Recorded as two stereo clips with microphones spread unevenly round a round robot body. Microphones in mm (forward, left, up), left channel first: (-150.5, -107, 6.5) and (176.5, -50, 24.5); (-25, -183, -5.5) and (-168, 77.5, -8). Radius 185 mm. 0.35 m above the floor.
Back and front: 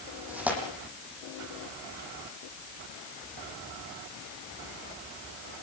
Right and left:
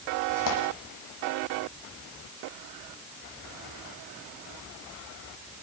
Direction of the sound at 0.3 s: 75° right.